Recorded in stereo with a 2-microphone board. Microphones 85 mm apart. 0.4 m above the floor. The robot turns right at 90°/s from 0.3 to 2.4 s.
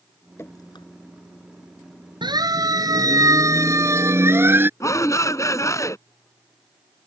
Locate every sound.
0.4 s dripping: 30° left (ahead or behind); by 0.8 s 70° left (ahead or behind)
2.2 s a siren: 65° right (ahead or behind); by 4.7 s 25° right (ahead or behind)
4.8 s a shout: 40° left (ahead or behind)